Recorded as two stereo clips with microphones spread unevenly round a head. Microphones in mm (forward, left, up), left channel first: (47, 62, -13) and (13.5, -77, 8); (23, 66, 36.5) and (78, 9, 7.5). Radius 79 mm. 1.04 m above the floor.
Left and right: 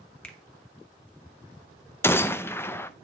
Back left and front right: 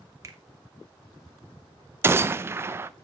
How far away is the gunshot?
About 0.5 m.